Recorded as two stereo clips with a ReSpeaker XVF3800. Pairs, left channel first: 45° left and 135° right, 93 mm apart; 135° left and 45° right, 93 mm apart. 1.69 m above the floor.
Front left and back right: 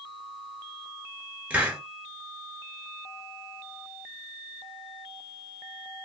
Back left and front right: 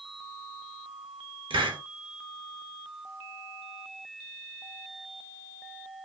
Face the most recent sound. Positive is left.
turn(degrees=-65)